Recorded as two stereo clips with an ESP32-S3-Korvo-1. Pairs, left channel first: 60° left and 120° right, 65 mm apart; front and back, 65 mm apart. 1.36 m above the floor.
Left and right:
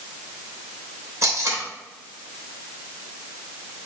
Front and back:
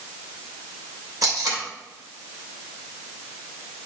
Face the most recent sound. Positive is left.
turn(degrees=-160)